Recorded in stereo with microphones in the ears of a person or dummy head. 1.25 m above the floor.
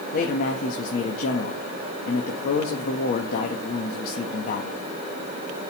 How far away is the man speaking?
About 1.7 m.